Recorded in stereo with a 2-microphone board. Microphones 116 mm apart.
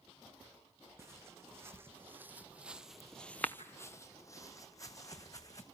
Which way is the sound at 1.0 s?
25° right (ahead or behind).